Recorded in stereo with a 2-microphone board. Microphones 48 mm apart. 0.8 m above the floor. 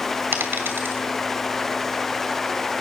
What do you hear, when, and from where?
0.3 s a dropped coin: 60° right (ahead or behind), 2.5 m